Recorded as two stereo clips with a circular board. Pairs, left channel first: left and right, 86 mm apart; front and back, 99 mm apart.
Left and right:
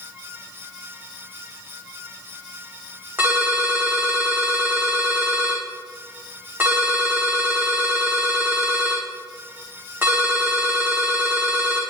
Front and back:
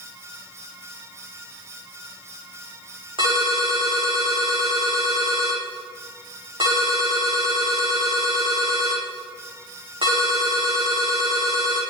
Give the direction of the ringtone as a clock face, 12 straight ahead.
5 o'clock.